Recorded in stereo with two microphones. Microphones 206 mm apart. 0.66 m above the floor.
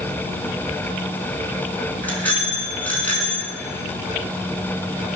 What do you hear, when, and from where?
2.0 s a bicycle bell: 5° left (ahead or behind), 5 m